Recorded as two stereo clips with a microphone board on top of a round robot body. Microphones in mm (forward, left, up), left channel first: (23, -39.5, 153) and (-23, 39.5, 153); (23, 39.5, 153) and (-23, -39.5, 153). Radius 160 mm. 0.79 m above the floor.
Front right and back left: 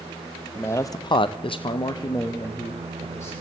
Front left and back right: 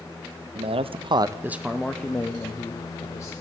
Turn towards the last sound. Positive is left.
turn(degrees=0)